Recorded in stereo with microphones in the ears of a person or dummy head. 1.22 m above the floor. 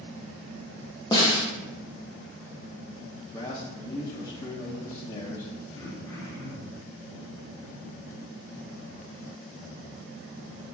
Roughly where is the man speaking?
Left.